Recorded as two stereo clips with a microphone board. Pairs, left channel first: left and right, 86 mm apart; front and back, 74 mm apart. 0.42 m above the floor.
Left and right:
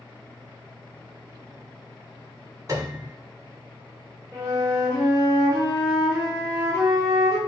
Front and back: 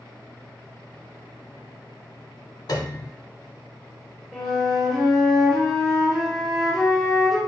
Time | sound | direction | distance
2.7 | a piano | 40° right | 0.7 m
4.3 | a flute | 85° right | 1.7 m